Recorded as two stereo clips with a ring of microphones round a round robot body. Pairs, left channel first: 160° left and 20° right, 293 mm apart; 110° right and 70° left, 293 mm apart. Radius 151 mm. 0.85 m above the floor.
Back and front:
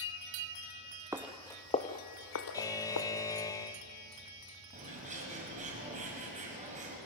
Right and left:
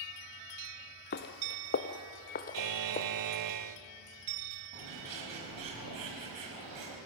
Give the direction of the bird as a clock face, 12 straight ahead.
10 o'clock.